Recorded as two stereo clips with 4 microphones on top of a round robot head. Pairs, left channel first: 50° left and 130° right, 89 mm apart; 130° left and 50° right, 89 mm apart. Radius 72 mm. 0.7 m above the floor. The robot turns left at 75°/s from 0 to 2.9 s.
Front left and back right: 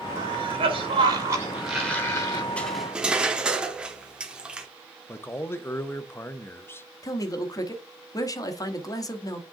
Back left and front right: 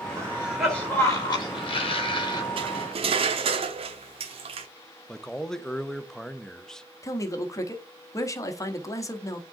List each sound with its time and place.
0.2 s a cough: 105° right, 3 m; by 2.5 s 85° left, 3 m
2.6 s cutlery clinking: 30° right, 1.1 m; by 4.7 s 55° right, 1.1 m
5.1 s a man speaking: 55° left, 0.6 m
7.0 s a man speaking: 85° left, 1.1 m